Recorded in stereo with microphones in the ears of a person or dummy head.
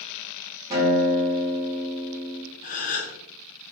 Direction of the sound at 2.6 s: 40° left (ahead or behind).